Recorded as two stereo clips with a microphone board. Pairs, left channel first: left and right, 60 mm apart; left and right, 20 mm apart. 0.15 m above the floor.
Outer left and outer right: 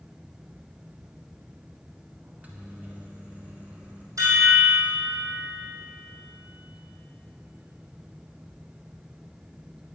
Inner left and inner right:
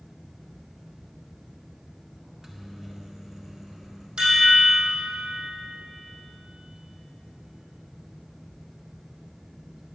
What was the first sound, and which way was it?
A microwave, 25° right (ahead or behind).